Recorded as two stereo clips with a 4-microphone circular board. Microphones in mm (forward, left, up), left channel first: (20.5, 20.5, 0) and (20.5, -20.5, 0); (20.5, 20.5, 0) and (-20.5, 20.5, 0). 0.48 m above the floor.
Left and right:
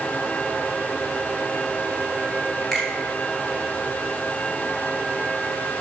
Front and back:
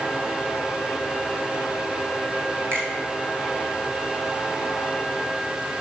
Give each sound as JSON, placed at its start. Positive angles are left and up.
{"t": 2.7, "sound": "a finger snap", "azimuth_deg": 175, "distance_m": 2.5}